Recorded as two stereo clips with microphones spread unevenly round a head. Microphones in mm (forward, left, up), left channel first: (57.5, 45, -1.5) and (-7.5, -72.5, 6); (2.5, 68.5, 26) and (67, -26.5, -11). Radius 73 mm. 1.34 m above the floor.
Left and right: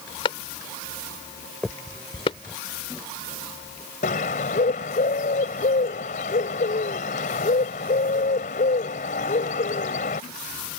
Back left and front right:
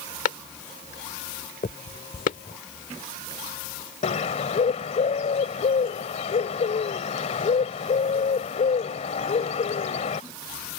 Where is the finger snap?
150° left.